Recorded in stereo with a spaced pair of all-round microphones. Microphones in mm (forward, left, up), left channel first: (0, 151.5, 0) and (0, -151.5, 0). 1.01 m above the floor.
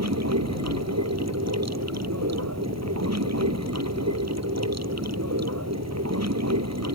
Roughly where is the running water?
Right.